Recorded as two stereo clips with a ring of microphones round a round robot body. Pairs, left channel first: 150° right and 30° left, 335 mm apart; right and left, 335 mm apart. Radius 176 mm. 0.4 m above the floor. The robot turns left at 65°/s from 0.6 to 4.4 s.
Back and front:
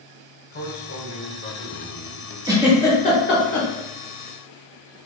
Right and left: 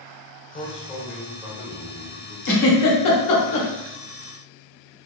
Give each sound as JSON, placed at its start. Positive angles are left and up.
{"t": 0.5, "sound": "a man speaking", "azimuth_deg": -140, "distance_m": 1.4}
{"t": 2.5, "sound": "a giggle", "azimuth_deg": -45, "distance_m": 1.2}